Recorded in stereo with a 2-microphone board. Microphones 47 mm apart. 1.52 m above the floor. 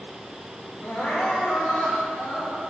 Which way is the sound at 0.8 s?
45° left (ahead or behind).